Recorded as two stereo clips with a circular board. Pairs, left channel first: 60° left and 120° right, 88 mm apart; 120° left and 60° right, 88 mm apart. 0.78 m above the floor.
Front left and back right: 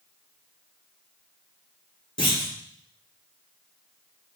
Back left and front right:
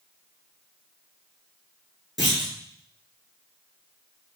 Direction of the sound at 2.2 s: 30° left.